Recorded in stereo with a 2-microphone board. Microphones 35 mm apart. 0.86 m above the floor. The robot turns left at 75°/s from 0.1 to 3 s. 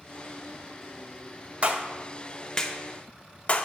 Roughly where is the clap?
Right.